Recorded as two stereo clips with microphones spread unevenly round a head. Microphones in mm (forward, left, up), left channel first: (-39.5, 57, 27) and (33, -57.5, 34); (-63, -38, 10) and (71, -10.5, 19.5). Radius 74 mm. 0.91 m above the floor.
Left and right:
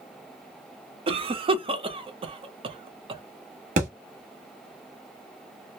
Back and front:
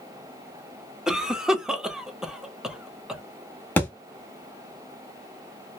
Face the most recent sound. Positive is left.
turn(degrees=-90)